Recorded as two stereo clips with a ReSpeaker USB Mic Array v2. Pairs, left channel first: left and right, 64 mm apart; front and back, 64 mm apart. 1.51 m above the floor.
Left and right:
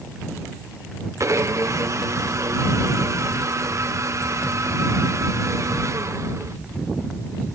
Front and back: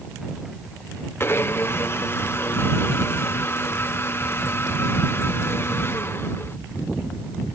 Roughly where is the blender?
Ahead right.